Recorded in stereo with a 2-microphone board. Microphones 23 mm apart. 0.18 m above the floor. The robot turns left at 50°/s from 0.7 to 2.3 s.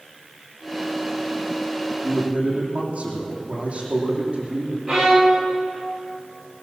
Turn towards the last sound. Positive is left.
turn(degrees=-20)  # may be behind; listen again after turning